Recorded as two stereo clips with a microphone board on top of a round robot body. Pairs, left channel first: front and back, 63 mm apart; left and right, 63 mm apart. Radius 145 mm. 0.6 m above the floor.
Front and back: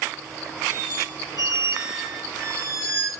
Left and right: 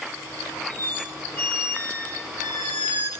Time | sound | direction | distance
0.7 | a squeak | 150° left | 3.5 m